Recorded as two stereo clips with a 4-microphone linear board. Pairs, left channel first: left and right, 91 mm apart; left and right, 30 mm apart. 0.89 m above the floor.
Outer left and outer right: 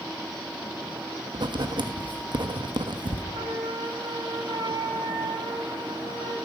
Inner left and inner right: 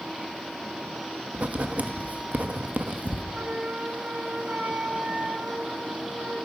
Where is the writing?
60° right (ahead or behind), 1.0 m.